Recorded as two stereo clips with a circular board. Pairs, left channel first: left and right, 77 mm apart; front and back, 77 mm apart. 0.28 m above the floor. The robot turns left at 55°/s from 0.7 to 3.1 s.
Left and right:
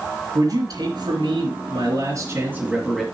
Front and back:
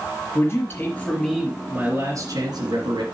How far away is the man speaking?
About 2.5 m.